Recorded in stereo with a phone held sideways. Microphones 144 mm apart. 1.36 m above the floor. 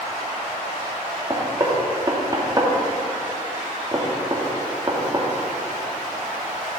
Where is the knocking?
25° right (ahead or behind), 2 m.